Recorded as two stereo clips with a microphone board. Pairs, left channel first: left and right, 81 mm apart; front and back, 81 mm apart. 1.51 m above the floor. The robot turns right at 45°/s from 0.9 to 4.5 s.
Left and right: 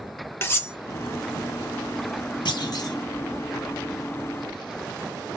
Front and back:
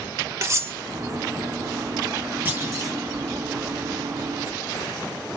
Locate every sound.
0.4 s cutlery clinking: 140° left, 0.9 m
2.5 s a clunk: 115° left, 1.7 m; by 3.0 s 135° left, 1.7 m